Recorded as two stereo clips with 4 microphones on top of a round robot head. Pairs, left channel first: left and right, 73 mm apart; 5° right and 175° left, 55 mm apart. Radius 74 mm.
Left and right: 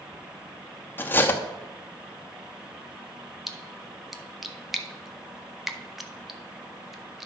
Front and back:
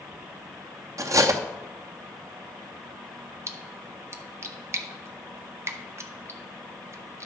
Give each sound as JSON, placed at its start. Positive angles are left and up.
{"t": 1.0, "sound": "cutlery clinking", "azimuth_deg": 155, "distance_m": 0.9}
{"t": 3.5, "sound": "a splash", "azimuth_deg": -175, "distance_m": 1.0}